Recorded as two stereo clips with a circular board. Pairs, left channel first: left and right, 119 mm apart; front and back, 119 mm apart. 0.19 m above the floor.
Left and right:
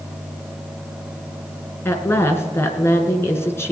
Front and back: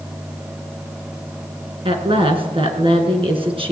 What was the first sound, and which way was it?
A woman speaking, 155° left.